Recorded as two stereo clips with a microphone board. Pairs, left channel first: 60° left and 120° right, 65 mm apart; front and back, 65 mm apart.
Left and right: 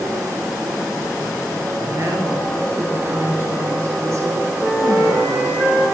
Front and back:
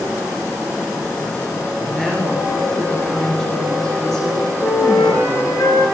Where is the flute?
30° right, 7.5 m.